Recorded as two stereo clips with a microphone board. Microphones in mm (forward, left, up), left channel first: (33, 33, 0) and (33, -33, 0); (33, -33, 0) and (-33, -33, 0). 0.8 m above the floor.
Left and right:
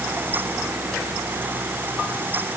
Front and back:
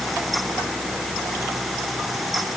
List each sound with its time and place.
Only background noise.